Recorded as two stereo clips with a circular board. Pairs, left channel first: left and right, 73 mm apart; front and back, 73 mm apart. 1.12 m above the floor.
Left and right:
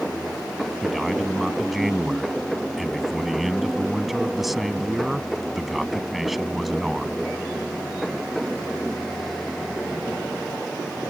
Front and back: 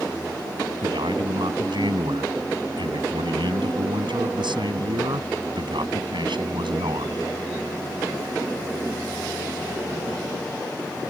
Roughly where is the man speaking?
Behind.